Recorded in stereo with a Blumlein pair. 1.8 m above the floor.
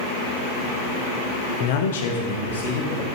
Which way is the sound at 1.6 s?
45° left.